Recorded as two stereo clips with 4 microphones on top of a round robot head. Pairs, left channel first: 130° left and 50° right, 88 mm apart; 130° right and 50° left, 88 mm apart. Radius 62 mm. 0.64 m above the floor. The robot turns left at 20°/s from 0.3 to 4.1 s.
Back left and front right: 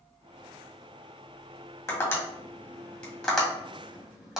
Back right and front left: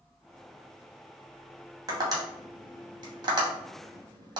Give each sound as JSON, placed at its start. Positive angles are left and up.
{"t": 1.9, "sound": "tapping", "azimuth_deg": 80, "distance_m": 1.9}